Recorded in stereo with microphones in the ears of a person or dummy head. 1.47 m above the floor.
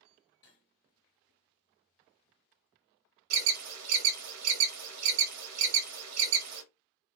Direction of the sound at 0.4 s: 20° left (ahead or behind).